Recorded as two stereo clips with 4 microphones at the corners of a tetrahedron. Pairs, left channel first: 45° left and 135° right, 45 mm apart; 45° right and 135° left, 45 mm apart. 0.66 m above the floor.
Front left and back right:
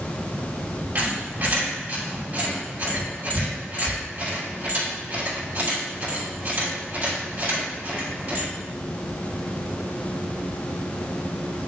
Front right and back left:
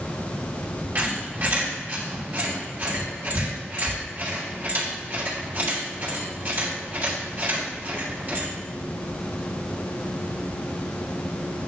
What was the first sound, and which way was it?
A squeak, straight behind.